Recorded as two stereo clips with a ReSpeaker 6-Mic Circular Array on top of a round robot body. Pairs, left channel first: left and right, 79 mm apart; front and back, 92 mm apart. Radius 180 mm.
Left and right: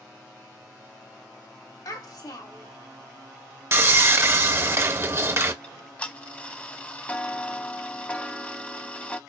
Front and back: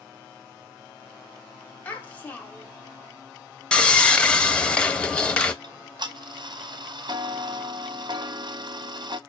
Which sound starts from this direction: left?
A child speaking, at 1.9 s.